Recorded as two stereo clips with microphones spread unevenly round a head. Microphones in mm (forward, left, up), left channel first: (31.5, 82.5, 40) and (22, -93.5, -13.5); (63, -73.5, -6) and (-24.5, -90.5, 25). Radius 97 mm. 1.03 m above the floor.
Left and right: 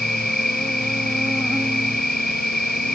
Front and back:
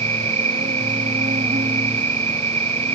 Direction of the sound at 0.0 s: 175° left.